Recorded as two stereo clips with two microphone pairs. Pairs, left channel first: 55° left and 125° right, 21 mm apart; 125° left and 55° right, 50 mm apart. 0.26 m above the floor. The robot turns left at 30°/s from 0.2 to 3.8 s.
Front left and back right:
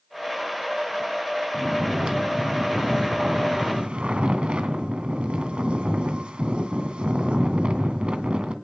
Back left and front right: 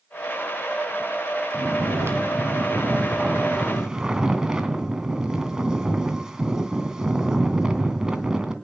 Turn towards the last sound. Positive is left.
turn(degrees=-130)